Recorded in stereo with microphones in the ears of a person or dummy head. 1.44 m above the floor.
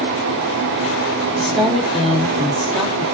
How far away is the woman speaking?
About 3 m.